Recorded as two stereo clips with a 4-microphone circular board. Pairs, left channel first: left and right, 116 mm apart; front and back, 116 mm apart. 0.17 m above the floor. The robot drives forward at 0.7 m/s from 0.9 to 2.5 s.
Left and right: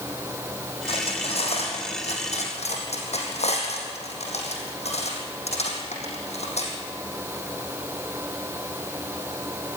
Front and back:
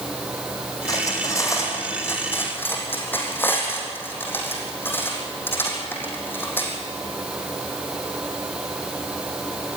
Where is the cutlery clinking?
60° left, 5 m; by 6.7 s 70° left, 4.5 m.